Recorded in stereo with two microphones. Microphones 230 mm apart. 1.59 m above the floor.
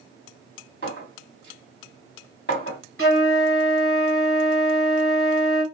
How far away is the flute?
About 1.4 m.